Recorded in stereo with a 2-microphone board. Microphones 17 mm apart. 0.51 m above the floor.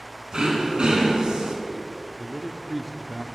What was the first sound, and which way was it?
Throat clearing, 75° right (ahead or behind).